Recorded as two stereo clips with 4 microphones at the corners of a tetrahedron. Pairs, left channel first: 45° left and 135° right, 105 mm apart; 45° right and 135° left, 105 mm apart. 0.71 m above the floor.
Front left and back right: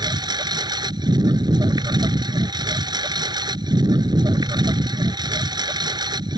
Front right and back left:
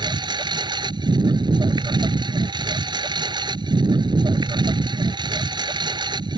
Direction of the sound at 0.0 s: Straight behind.